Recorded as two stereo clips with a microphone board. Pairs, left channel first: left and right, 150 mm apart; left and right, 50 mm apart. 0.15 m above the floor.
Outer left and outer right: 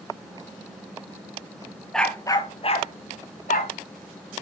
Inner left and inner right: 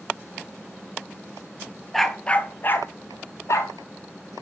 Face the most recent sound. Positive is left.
turn(degrees=70)  # may be behind; listen again after turning